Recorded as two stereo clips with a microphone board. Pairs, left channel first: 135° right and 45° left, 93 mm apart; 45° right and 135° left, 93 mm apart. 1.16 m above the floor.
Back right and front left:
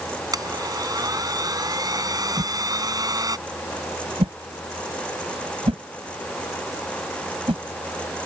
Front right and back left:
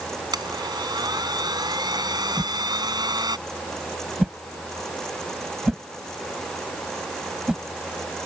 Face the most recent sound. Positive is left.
turn(degrees=50)